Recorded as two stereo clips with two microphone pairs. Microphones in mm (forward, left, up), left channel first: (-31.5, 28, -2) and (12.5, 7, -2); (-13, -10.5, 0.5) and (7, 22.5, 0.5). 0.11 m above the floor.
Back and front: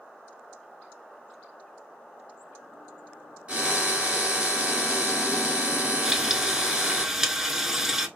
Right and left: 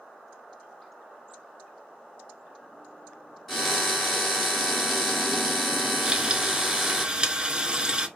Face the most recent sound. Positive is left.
turn(degrees=45)